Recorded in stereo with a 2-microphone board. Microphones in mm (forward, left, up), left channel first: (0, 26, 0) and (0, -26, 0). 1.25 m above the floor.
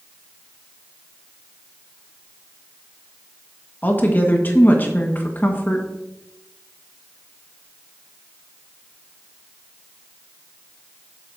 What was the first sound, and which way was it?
A woman speaking, 35° left (ahead or behind).